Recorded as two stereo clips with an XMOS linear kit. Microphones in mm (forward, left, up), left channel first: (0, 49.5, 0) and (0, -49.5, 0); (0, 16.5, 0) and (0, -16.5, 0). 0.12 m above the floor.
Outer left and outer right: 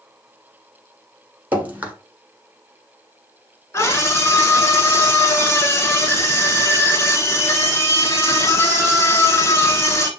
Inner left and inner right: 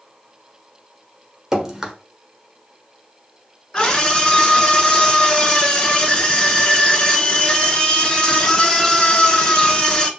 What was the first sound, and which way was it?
Dripping, 15° right (ahead or behind).